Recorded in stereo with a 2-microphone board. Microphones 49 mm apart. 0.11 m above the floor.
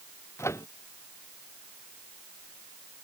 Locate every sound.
0.4 s a microwave: 75° left (ahead or behind)